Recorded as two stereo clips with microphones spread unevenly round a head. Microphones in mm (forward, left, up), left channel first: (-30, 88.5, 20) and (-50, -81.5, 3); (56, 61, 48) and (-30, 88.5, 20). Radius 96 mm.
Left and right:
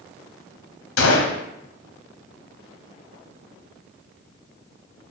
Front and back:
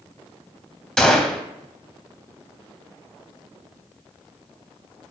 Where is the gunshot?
75° left, 0.6 m.